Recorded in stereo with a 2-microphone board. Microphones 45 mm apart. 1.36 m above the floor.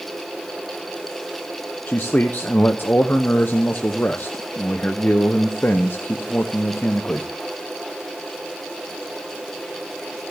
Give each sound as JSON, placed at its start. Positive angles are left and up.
{"t": 1.9, "sound": "a man speaking", "side_deg": 45, "distance_m": 0.7}